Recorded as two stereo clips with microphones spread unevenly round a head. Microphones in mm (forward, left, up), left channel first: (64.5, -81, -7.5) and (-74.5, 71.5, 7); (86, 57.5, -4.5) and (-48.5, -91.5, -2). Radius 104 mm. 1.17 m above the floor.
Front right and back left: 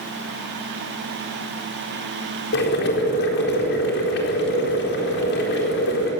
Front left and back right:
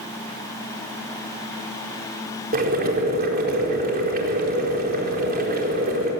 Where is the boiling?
85° right, 4.5 m.